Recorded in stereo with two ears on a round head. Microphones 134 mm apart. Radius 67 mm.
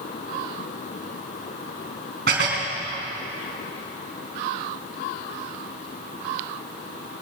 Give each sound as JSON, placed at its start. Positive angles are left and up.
{"t": 2.3, "sound": "dishes clattering", "side_deg": -75, "distance_m": 2.5}